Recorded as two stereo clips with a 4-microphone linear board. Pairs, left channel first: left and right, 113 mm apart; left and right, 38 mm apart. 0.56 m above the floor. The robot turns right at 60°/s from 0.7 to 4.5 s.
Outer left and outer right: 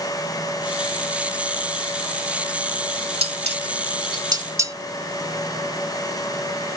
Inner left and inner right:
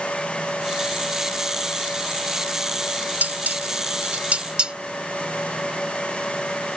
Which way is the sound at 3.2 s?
60° right (ahead or behind).